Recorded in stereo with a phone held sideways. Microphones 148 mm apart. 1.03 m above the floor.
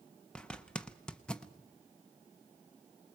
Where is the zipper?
5° left (ahead or behind), 0.9 m.